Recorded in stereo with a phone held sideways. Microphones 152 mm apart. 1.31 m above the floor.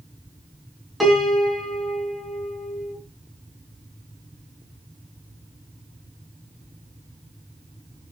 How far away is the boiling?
I don't hear boiling.